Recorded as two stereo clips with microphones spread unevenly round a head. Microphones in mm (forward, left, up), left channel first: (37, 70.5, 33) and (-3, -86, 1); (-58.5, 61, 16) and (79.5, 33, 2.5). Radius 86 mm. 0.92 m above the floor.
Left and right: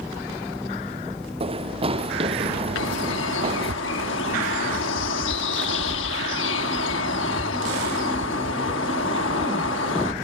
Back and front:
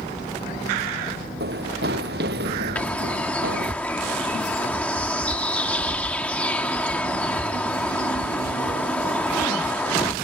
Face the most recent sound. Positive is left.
turn(degrees=90)